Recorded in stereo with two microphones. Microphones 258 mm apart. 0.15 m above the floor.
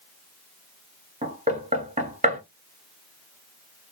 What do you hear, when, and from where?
1.2 s knocking: 30° right (ahead or behind), 1.1 m